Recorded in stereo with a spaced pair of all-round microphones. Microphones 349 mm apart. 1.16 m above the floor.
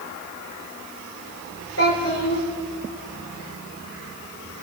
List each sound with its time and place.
1.8 s a child speaking: 40° left (ahead or behind), 2.5 m